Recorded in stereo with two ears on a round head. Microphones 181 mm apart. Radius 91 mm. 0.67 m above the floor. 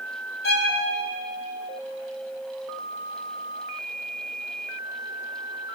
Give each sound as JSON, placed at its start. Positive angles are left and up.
{"t": 0.4, "sound": "a violin", "side_deg": 55, "distance_m": 3.5}